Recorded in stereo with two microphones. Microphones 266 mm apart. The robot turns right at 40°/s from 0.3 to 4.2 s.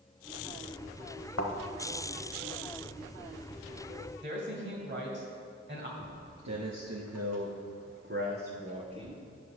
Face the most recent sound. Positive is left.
turn(degrees=-20)  # may be behind; listen again after turning